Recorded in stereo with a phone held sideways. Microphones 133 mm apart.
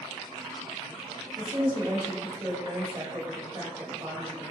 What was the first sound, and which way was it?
A woman speaking, 35° right (ahead or behind).